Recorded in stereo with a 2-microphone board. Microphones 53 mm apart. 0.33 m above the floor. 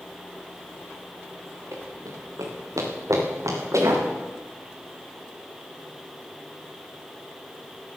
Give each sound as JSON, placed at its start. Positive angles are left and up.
{"t": 1.7, "sound": "running footsteps", "side_deg": -70, "distance_m": 3.5}